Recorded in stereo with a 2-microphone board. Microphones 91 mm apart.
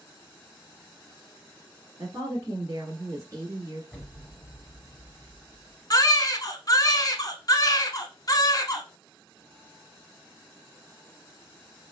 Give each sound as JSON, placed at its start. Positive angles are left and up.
{"t": 2.0, "sound": "a woman speaking", "side_deg": -30, "distance_m": 1.3}
{"t": 3.9, "sound": "an explosion", "side_deg": 10, "distance_m": 1.9}
{"t": 5.9, "sound": "a baby crying", "side_deg": 45, "distance_m": 0.5}